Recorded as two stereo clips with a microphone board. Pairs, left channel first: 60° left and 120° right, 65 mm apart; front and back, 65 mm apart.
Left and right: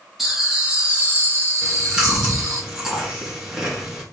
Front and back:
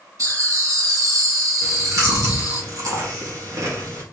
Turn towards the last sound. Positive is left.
turn(degrees=160)